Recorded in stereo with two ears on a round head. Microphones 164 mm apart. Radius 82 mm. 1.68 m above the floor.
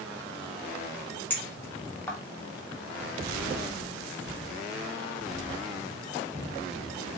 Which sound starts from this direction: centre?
A clink, at 1.3 s.